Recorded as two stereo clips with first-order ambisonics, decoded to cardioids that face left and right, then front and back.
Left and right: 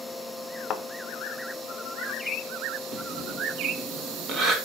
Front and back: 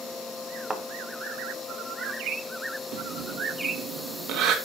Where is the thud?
110° left, 1.1 m.